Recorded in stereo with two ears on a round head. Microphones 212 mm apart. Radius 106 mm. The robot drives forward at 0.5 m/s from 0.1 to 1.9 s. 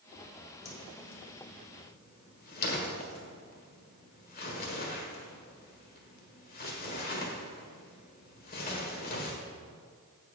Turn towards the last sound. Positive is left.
turn(degrees=40)  # may be behind; listen again after turning